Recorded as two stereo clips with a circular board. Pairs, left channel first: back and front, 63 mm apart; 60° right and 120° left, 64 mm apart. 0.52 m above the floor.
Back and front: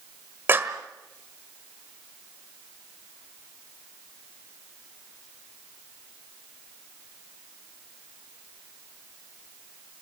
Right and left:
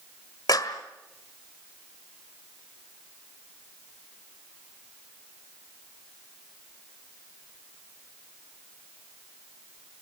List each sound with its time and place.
0.5 s a clap: 55° right, 1.5 m